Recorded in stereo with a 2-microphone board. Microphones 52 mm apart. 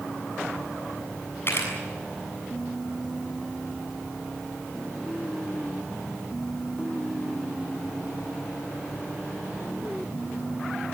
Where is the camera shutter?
50° left (ahead or behind), 7 m.